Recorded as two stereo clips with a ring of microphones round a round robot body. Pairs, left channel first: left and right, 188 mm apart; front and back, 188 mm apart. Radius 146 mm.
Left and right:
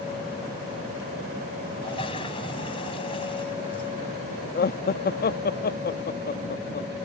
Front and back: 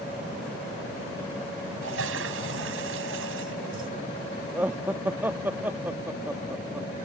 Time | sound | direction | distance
1.8 | a toilet flushing | 160° left | ?
4.5 | laughter | 100° left | ?